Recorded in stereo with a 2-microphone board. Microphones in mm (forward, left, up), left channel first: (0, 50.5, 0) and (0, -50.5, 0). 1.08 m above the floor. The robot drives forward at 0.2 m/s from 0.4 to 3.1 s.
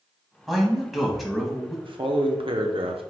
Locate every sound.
0.5 s a man speaking: centre (ahead or behind), 1.1 m
1.9 s a man speaking: 60° right (ahead or behind), 0.8 m; by 3.0 s 70° right (ahead or behind), 0.7 m